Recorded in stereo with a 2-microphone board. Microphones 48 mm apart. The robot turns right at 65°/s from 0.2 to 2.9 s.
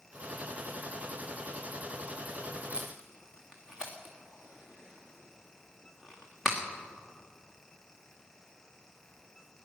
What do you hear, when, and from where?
2.7 s tape being pulled: 25° right (ahead or behind), 3 m; by 6.6 s 10° right (ahead or behind), 3 m